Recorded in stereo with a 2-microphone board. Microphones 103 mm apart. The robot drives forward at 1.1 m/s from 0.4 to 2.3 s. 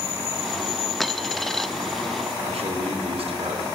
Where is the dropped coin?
Centre (ahead or behind), 1.1 m; by 1.7 s 5° left (ahead or behind), 0.7 m.